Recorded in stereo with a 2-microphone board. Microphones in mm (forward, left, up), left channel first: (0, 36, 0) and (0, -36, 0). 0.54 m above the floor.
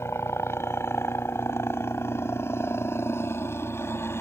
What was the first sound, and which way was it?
A helicopter, 35° left (ahead or behind).